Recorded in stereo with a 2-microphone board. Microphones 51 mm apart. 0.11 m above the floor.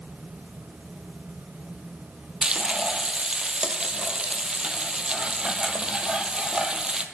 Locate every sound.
2.4 s frying: 20° right (ahead or behind), 0.9 m